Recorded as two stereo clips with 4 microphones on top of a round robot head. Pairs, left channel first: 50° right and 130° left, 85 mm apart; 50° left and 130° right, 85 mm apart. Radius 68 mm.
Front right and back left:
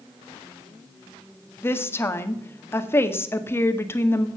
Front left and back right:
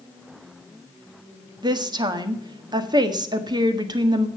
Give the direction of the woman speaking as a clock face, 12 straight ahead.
4 o'clock.